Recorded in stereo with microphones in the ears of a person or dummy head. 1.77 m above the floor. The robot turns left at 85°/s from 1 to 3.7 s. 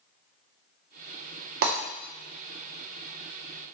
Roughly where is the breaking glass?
Right.